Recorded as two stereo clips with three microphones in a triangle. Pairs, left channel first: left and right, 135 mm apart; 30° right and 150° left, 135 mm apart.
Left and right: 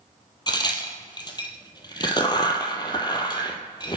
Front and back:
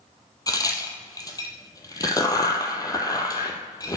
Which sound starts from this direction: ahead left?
A crack, at 0.5 s.